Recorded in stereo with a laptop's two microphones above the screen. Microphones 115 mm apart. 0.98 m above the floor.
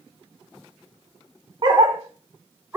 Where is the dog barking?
40° right (ahead or behind), 0.7 m; by 2.8 s 20° right (ahead or behind), 0.9 m.